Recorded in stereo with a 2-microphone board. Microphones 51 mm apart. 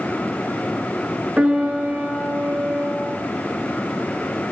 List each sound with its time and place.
1.4 s a piano: 25° right (ahead or behind), 0.9 m